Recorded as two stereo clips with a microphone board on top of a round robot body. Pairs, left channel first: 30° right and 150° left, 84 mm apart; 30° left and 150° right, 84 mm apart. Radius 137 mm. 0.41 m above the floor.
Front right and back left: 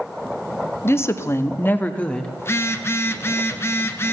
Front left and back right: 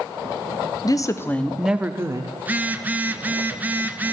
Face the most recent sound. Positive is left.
turn(degrees=-85)